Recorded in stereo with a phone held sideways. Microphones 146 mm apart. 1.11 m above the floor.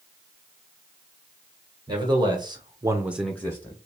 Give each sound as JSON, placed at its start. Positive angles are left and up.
{"t": 1.9, "sound": "a man speaking", "side_deg": -30, "distance_m": 2.0}